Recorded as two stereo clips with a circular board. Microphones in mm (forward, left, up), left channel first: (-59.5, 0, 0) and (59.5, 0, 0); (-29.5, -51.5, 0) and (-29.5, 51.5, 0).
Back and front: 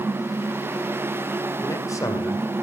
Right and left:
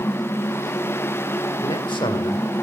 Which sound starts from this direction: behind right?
A man speaking, at 1.6 s.